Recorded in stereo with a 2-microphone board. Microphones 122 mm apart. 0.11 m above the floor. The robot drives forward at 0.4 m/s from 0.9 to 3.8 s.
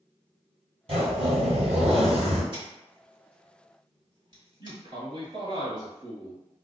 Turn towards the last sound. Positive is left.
turn(degrees=-40)  # may be behind; listen again after turning